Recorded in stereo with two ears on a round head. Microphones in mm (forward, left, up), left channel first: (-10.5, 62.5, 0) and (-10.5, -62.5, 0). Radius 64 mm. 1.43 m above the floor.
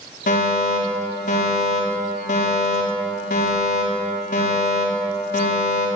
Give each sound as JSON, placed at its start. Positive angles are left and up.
{"t": 0.3, "sound": "a fire alarm", "side_deg": 60, "distance_m": 5.5}